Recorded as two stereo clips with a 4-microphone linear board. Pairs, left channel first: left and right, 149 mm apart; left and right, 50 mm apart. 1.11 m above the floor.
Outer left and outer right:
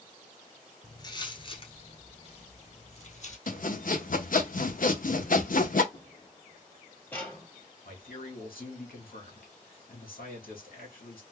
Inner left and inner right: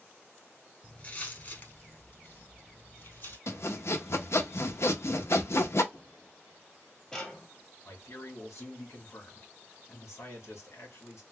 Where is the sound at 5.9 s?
40° left (ahead or behind), 1.8 m; by 7.5 s 5° left (ahead or behind), 1.6 m.